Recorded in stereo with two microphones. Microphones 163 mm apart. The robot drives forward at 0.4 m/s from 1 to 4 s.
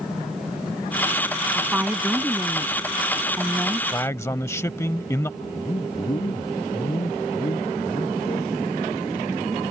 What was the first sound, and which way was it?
A woman speaking, 10° right (ahead or behind).